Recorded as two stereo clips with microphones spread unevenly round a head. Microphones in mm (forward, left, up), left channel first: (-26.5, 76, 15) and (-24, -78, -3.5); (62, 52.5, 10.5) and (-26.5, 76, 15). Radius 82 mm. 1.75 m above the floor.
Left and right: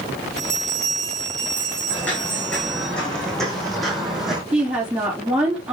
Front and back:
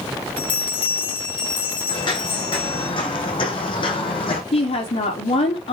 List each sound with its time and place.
0.4 s a bell: 5° left, 5 m
1.9 s footsteps: 15° left, 5 m; by 4.4 s straight ahead, 4 m
4.5 s a woman speaking: 5° right, 4.5 m